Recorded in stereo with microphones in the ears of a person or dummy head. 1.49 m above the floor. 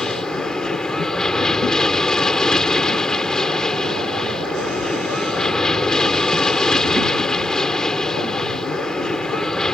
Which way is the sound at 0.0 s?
10° left (ahead or behind).